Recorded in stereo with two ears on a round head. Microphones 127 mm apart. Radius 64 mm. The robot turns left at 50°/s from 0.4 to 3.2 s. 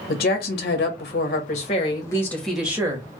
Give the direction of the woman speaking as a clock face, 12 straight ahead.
9 o'clock.